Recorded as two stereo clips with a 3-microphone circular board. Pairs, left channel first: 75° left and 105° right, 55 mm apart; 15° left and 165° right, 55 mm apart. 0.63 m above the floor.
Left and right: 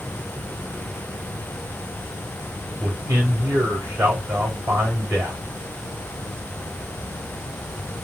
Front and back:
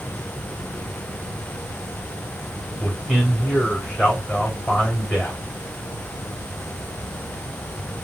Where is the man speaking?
75° right, 3 m.